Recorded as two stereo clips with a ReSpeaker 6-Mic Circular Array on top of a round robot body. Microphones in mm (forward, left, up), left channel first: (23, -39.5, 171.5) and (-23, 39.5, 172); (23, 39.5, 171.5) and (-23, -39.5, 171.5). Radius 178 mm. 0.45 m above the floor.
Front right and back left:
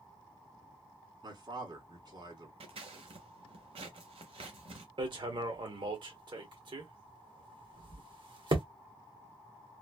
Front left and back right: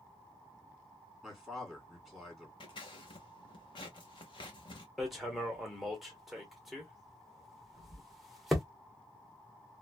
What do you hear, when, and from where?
1.2 s a man speaking: 150° left, 2 m
2.6 s scissors: 95° left, 0.5 m
5.0 s hammering: 150° left, 1.1 m